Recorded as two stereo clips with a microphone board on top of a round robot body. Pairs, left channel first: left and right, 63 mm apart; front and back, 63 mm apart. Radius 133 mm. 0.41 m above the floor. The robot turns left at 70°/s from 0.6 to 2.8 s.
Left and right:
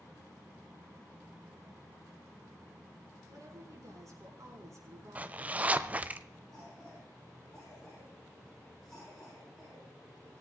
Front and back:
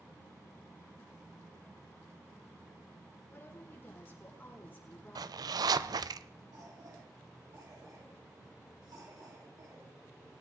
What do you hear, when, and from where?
3.3 s a woman speaking: 60° right, 7 m
5.2 s a zipper: 160° right, 0.6 m
6.5 s a cough: 175° left, 8 m